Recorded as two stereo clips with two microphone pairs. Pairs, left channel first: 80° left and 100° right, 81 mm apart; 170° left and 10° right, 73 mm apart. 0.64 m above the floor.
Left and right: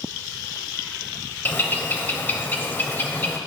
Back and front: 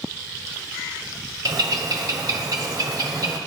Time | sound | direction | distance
1.4 | a bird | 20° left | 0.9 m